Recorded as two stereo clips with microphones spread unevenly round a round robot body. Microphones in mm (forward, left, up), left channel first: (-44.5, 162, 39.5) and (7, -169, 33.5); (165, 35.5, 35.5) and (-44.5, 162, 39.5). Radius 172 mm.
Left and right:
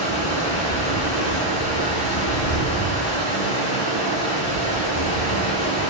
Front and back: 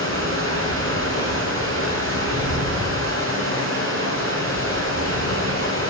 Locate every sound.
0.0 s running water: 115° left, 2.5 m